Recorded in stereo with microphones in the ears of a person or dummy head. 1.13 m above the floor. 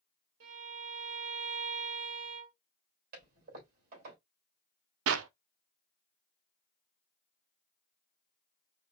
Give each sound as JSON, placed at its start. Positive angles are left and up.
{"t": 0.4, "sound": "a violin", "side_deg": -80, "distance_m": 2.5}
{"t": 3.1, "sound": "a toilet flushing", "side_deg": -55, "distance_m": 3.0}
{"t": 5.1, "sound": "a clap", "side_deg": -80, "distance_m": 0.5}